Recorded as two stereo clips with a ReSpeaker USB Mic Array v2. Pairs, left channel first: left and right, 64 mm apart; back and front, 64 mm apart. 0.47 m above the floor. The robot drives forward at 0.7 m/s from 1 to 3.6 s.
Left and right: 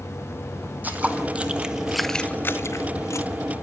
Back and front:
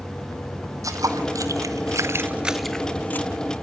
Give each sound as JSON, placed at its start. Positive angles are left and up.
{"t": 0.8, "sound": "footsteps", "azimuth_deg": -30, "distance_m": 1.4}